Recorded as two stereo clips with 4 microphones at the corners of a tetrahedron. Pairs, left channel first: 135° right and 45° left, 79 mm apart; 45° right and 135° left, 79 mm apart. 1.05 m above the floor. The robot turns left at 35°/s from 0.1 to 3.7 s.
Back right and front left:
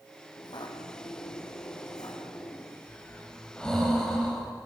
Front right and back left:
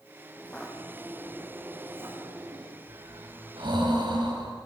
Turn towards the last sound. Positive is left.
turn(degrees=145)